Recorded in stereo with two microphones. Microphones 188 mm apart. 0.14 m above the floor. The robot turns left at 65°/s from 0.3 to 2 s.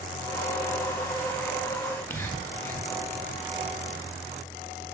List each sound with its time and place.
1.8 s whispering: 10° left (ahead or behind), 1.1 m